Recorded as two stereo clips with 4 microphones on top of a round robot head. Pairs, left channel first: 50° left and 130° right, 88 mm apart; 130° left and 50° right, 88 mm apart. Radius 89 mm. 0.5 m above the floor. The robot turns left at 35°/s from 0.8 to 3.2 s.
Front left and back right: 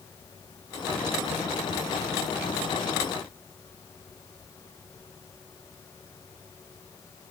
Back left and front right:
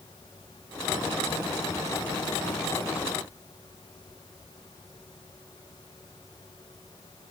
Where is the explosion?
No explosion in this recording.